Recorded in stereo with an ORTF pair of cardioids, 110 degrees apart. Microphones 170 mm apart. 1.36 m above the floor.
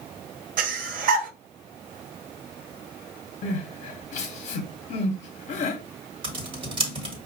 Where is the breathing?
55° right, 0.7 m.